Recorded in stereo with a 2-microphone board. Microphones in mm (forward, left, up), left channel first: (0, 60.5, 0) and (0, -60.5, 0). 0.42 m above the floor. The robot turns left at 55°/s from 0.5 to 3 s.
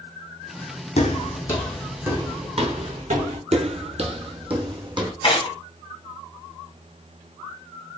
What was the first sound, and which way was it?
Footsteps, 60° left (ahead or behind).